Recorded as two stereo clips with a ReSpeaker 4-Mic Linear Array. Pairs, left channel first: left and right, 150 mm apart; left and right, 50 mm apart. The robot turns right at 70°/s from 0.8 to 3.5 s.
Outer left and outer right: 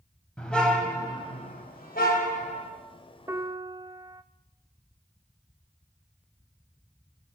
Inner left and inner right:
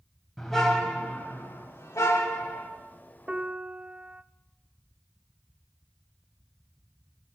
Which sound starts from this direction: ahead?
A car horn, at 0.4 s.